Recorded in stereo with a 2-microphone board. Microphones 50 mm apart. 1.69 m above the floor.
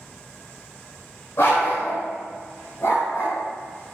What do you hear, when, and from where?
1.4 s a dog barking: 55° left (ahead or behind), 2.5 m; by 3.4 s 70° left (ahead or behind), 3.5 m